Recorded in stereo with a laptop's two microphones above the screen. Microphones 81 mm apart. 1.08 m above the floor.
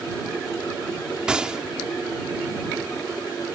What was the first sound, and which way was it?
A gunshot, 10° right (ahead or behind).